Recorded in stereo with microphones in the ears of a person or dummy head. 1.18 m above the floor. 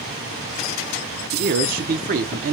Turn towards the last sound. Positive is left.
turn(degrees=-50)  # may be behind; listen again after turning